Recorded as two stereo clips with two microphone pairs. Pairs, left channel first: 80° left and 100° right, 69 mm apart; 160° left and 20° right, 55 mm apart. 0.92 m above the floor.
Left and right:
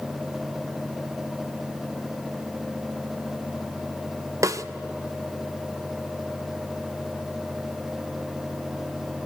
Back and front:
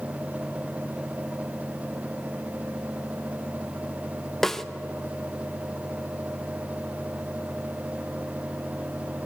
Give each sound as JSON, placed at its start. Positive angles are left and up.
{"t": 4.4, "sound": "a snare drum", "azimuth_deg": -115, "distance_m": 0.6}